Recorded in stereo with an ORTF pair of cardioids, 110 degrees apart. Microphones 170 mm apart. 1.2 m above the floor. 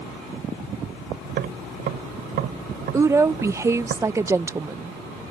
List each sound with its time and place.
1.2 s tapping: 65° right
2.9 s a woman speaking: 15° right